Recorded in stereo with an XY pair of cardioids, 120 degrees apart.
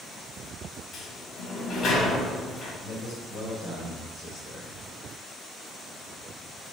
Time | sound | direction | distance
0.9 | a sliding door | 55° left | 2.5 m
2.8 | a man speaking | 65° left | 2.5 m